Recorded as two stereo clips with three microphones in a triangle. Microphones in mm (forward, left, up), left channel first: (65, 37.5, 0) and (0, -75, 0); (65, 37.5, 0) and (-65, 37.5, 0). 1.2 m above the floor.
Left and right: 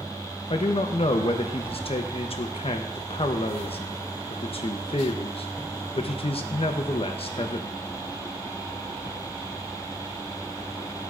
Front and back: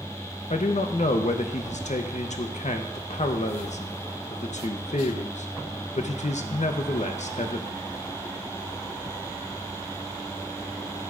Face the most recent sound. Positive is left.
turn(degrees=20)